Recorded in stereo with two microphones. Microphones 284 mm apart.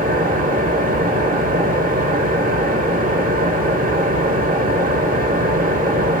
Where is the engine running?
30° right (ahead or behind), 1.0 m.